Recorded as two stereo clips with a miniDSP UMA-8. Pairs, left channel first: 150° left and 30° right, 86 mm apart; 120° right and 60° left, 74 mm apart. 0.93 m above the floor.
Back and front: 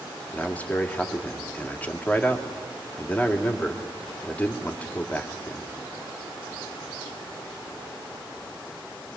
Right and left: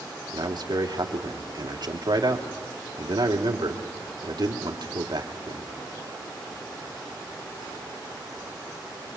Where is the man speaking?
80° left, 2.5 m.